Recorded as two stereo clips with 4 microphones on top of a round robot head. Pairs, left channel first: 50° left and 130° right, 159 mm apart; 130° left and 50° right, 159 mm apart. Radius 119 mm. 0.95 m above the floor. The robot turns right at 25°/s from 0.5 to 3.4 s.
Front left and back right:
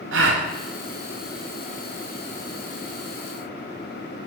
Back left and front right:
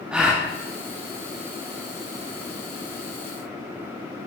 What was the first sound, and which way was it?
A gasp, 130° right.